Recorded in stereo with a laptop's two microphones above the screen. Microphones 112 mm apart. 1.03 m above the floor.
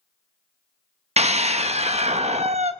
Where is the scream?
75° right (ahead or behind), 1.2 m.